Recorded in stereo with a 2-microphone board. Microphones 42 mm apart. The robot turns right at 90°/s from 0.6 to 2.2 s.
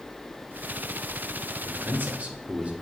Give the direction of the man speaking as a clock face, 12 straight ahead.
3 o'clock.